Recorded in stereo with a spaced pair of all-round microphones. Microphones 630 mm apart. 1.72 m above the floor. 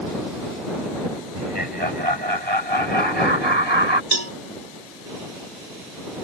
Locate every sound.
1.3 s laughter: 40° right (ahead or behind); by 4.0 s 45° right (ahead or behind)
4.1 s a cowbell: 80° right